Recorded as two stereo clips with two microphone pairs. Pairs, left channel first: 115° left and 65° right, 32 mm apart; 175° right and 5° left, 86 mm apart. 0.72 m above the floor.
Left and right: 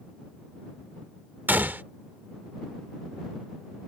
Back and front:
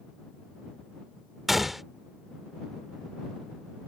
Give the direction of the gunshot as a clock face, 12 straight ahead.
3 o'clock.